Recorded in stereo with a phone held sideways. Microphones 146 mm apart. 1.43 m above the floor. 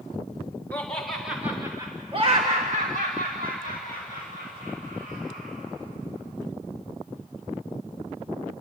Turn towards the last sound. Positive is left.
turn(degrees=-80)